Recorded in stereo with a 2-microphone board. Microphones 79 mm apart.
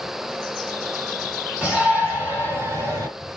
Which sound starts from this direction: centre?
A shout, at 1.6 s.